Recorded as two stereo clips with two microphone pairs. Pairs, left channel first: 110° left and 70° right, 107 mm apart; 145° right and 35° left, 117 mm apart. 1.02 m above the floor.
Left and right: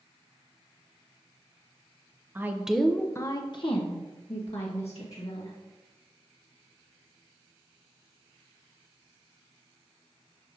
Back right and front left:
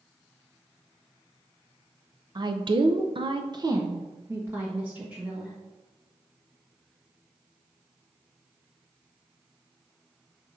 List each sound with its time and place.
2.4 s a woman speaking: 10° right, 0.8 m; by 5.5 s 110° left, 1.9 m